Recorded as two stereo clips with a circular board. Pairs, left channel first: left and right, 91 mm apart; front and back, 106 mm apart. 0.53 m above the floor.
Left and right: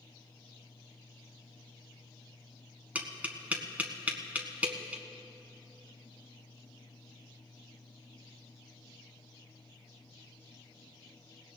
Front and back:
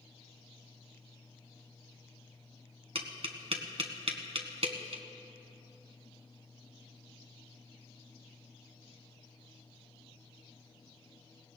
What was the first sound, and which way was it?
Tapping, 160° right.